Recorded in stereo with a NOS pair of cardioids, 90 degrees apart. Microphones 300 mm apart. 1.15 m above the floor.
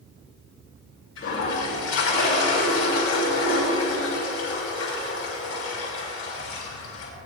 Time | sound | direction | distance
1.2 | a toilet flushing | 60° left | 6.5 m